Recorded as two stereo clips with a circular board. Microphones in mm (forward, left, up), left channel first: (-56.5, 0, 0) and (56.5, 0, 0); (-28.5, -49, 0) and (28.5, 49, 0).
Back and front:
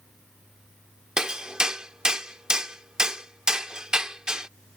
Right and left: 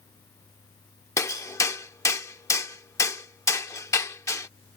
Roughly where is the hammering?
Right.